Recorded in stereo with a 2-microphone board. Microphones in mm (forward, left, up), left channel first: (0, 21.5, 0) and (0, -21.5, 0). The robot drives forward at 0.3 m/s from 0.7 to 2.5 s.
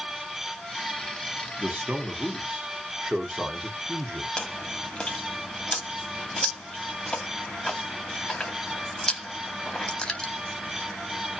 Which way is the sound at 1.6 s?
30° right (ahead or behind).